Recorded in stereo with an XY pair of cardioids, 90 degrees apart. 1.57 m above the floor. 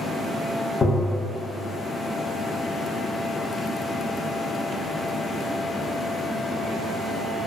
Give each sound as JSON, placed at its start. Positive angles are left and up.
{"t": 0.8, "sound": "tapping", "azimuth_deg": 35, "distance_m": 0.5}